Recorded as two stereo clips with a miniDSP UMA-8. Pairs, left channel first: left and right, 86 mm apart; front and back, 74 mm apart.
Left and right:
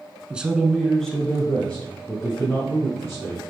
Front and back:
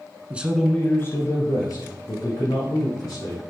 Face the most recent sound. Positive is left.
turn(degrees=15)